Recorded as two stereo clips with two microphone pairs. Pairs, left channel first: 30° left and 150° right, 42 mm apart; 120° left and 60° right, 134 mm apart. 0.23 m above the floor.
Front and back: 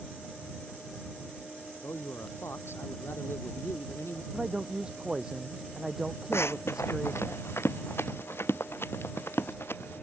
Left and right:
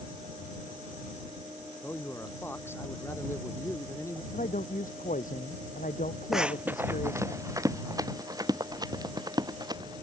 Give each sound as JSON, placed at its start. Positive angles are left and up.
{"t": 1.8, "sound": "a man speaking", "azimuth_deg": 45}
{"t": 4.3, "sound": "a man speaking", "azimuth_deg": 135}
{"t": 6.3, "sound": "running footsteps", "azimuth_deg": 30}